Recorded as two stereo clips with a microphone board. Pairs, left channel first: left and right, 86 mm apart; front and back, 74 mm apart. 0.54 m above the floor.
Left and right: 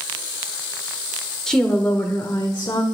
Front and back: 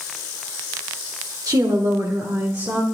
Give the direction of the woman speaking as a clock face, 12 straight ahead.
6 o'clock.